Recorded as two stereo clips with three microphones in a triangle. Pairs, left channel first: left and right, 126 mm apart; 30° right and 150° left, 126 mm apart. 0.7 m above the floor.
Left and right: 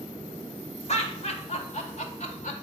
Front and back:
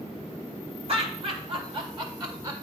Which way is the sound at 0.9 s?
115° left.